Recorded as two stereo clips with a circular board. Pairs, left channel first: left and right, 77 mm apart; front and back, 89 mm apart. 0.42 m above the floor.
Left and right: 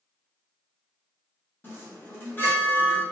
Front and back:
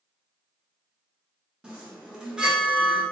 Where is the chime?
110° left, 0.8 m.